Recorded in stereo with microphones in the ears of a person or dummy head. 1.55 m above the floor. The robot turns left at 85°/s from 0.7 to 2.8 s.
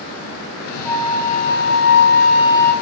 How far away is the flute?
About 4.5 m.